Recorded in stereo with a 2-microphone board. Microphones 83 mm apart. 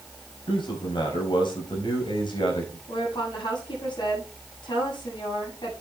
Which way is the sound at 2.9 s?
65° left (ahead or behind).